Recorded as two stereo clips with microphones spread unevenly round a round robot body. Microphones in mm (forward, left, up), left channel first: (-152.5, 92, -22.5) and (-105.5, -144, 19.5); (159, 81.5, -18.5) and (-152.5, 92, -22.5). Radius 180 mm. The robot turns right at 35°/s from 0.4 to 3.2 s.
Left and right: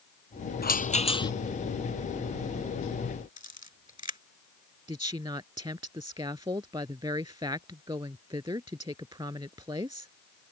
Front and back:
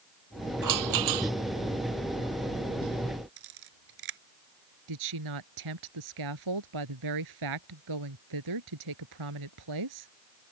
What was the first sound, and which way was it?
A rattle, 150° left.